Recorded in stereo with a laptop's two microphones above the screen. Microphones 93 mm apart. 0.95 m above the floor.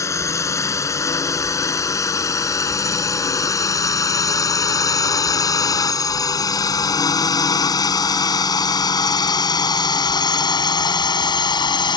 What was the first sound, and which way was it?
A drone, 35° left (ahead or behind).